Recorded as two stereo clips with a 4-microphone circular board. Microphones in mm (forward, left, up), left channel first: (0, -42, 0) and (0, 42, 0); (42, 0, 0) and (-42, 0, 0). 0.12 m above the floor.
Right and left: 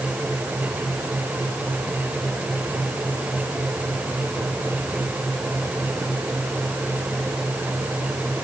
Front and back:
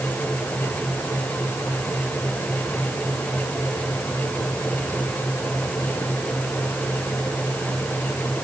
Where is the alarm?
I don't hear an alarm.